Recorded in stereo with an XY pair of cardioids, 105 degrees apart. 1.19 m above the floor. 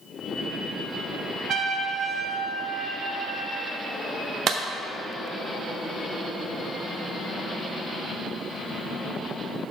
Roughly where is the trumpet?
Ahead right.